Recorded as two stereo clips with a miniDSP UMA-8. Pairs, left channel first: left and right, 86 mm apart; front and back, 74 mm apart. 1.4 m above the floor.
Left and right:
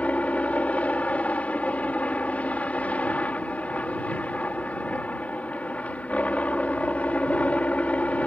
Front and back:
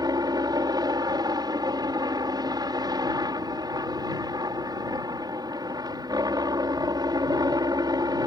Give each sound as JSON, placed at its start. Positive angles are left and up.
{"t": 0.0, "sound": "a helicopter", "azimuth_deg": 160}